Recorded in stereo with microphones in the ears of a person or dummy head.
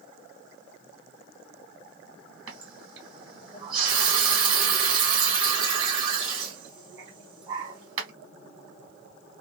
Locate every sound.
2.5 s a running tap: 25° right (ahead or behind), 1.4 m